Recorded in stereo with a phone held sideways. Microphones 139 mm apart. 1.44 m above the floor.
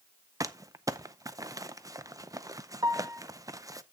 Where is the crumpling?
25° right (ahead or behind), 0.6 m.